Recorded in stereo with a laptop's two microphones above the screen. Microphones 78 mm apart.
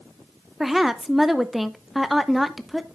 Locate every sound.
0.6 s a woman speaking: 5° right (ahead or behind), 0.7 m